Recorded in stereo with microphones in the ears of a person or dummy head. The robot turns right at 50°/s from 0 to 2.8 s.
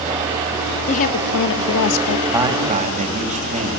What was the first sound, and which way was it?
A woman speaking, 35° left.